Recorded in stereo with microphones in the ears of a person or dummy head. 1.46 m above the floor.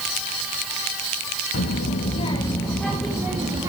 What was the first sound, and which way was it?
A child speaking, 50° left (ahead or behind).